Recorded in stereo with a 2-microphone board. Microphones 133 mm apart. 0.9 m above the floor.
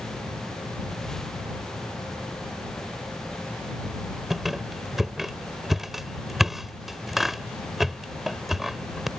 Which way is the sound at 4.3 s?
Centre (ahead or behind).